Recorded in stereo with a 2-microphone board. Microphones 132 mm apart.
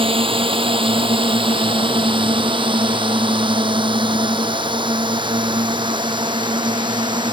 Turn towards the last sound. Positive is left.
turn(degrees=-35)  # may be behind; listen again after turning